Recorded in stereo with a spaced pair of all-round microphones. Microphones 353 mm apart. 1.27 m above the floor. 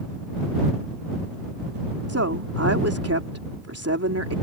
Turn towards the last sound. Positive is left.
turn(degrees=-40)  # may be behind; listen again after turning